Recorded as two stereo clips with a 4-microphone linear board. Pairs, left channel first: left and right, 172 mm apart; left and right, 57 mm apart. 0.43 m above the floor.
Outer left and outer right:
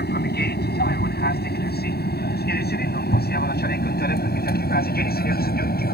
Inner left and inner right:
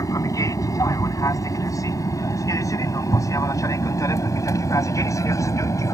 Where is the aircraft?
65° left (ahead or behind); by 5.9 s 60° left (ahead or behind).